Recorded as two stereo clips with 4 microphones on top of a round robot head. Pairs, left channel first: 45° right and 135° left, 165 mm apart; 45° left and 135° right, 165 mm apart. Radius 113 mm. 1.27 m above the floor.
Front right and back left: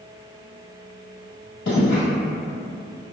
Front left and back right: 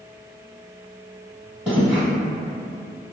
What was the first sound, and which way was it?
Footsteps, 50° right.